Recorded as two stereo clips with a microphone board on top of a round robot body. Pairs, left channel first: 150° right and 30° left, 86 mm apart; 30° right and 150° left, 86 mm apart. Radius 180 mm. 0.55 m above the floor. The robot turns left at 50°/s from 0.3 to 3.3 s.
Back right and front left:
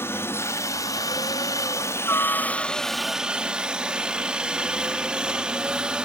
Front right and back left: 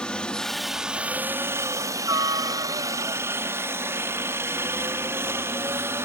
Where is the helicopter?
105° right; by 6.0 s 105° left.